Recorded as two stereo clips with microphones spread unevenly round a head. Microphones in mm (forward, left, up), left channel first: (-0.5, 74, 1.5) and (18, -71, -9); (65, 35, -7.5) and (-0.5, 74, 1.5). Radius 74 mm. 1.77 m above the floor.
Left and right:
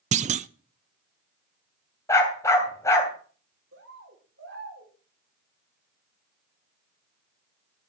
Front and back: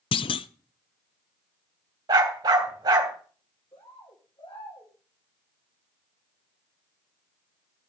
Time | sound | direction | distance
0.1 | a clunk | 40° right | 0.6 m
2.1 | a dog barking | 165° left | 3 m
3.7 | a bird | 90° right | 4 m